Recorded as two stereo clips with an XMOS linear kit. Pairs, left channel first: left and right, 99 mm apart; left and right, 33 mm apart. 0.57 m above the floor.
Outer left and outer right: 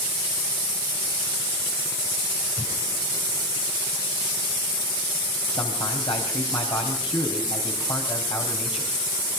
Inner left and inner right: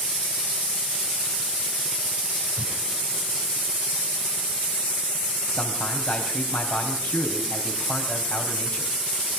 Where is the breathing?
25° right (ahead or behind), 6 m.